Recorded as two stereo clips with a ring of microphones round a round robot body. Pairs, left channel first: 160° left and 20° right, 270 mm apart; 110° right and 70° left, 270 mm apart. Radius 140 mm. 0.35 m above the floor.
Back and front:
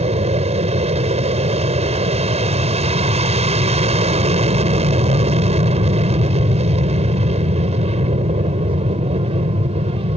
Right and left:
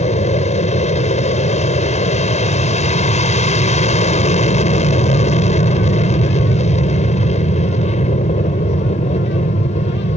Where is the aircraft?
70° right.